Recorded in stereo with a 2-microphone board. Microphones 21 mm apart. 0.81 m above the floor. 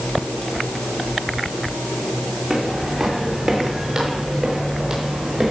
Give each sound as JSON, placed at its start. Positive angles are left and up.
{"t": 2.5, "sound": "footsteps", "side_deg": -10, "distance_m": 5.5}